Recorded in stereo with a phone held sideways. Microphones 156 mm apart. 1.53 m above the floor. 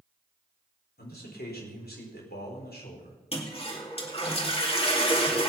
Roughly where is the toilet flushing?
Left.